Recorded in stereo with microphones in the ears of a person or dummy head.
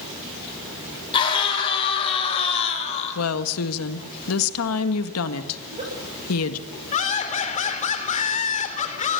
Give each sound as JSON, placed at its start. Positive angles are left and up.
{"t": 1.1, "sound": "a scream", "side_deg": 30, "distance_m": 5.0}
{"t": 3.1, "sound": "a woman speaking", "side_deg": 85, "distance_m": 1.8}
{"t": 5.6, "sound": "a giggle", "side_deg": -35, "distance_m": 6.5}
{"t": 6.9, "sound": "laughter", "side_deg": 40, "distance_m": 3.5}